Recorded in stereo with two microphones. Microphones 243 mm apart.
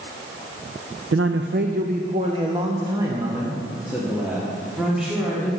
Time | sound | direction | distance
1.1 | a man speaking | 65° right (ahead or behind) | 0.6 m